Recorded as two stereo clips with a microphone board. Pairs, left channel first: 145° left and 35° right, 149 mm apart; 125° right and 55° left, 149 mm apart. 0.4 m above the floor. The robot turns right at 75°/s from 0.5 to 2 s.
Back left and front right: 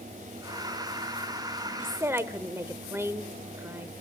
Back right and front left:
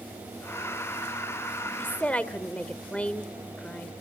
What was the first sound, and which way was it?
A woman speaking, 75° right.